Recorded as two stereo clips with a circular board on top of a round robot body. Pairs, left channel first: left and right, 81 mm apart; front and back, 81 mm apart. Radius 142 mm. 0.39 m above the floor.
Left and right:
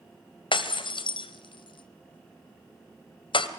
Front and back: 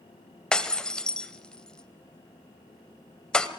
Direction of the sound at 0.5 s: 80° left.